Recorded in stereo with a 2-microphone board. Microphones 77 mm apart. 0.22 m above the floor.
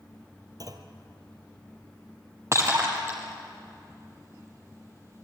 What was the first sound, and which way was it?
A clunk, 50° right (ahead or behind).